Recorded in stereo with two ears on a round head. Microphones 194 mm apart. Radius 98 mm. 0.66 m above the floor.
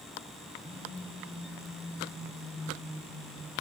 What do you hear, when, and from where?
0.6 s a phone buzzing: 25° right (ahead or behind), 5 m